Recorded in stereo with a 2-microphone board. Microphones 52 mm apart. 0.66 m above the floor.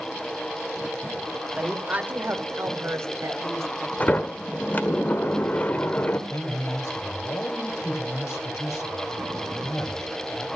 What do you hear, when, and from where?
1.6 s a woman speaking: 25° right (ahead or behind), 2 m; by 3.9 s 75° right (ahead or behind), 2.5 m
4.0 s a sliding door: 35° left (ahead or behind), 1.2 m
6.3 s a man speaking: 70° left (ahead or behind), 3 m